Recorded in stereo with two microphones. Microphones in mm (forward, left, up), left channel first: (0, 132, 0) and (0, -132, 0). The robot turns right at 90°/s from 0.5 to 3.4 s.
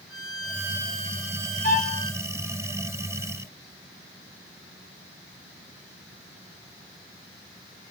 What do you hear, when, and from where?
0.1 s a violin: straight behind, 4 m; by 2.2 s 25° right, 4 m
1.6 s a violin: 75° right, 3.5 m; by 2.0 s 45° right, 3.5 m